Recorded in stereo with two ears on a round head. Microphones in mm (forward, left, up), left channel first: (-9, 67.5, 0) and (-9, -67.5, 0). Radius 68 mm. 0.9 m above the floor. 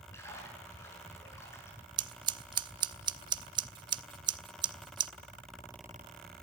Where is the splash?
20° left (ahead or behind), 6.5 m.